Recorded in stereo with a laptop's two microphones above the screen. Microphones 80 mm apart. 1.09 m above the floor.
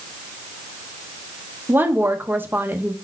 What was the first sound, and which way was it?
A woman speaking, 25° right (ahead or behind).